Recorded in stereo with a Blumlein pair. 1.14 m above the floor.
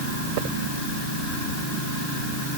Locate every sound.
Only background noise.